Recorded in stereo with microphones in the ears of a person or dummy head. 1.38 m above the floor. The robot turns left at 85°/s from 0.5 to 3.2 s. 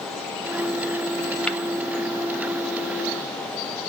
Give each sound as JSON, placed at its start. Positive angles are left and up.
{"t": 1.5, "sound": "tapping", "side_deg": 5, "distance_m": 1.0}